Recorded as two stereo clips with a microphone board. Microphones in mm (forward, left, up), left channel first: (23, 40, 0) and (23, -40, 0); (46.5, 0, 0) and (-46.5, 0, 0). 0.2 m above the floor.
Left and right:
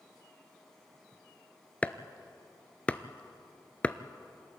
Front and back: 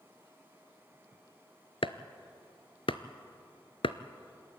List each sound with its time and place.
1.8 s chopping: 15° left, 0.7 m